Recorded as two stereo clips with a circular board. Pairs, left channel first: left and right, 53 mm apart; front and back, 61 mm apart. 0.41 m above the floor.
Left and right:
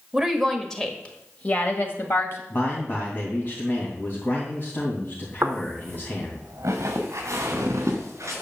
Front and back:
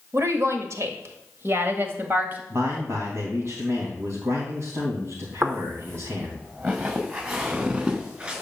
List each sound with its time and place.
0.1 s a woman speaking: 170° right, 1.5 m; by 2.4 s 125° left, 2.5 m
2.5 s a man speaking: 140° left, 3 m
5.4 s footsteps: 130° right, 2.0 m; by 8.4 s 110° right, 4 m